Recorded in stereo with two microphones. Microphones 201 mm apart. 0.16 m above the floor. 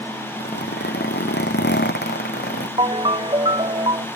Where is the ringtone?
25° right (ahead or behind).